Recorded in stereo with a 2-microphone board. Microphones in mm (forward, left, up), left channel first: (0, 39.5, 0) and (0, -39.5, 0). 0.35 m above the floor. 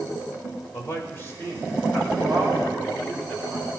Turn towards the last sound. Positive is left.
turn(degrees=20)  # may be behind; listen again after turning